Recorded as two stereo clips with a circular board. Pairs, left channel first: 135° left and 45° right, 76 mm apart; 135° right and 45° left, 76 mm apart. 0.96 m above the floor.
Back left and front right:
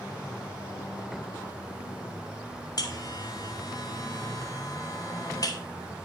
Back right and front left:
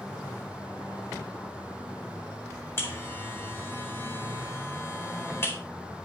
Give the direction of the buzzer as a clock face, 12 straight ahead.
6 o'clock.